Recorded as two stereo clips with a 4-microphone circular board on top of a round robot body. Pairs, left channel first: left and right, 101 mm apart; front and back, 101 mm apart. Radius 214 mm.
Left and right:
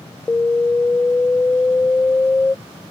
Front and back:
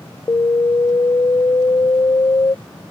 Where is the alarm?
25° left.